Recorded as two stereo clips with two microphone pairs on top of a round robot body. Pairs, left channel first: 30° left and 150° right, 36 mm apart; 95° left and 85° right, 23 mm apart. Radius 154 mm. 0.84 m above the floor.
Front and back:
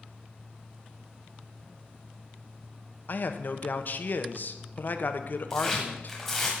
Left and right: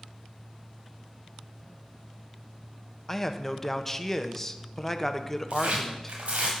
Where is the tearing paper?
50° right, 1.2 m.